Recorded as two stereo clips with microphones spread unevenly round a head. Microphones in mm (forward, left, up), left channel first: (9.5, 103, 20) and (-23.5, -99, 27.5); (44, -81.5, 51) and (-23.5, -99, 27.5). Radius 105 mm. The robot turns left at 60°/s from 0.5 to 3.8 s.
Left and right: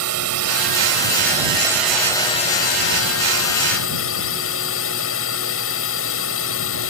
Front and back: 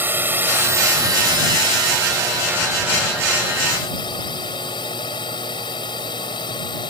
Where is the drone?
105° right; by 6.9 s 55° left.